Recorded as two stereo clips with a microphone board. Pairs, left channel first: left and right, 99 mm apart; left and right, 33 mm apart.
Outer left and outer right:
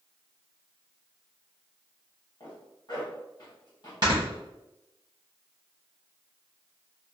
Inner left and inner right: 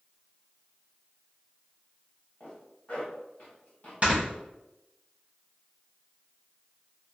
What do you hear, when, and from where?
2.4 s a zipper: 45° left (ahead or behind), 1.2 m
4.0 s snoring: 40° right (ahead or behind), 1.0 m